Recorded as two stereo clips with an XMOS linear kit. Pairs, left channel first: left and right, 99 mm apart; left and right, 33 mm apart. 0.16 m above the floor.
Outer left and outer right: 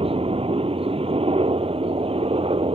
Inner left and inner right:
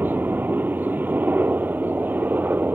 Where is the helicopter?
70° right (ahead or behind).